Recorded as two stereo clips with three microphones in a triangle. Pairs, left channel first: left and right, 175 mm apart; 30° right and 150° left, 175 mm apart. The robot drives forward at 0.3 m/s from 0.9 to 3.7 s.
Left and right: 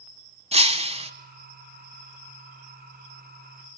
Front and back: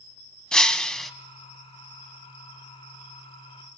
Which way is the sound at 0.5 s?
115° right.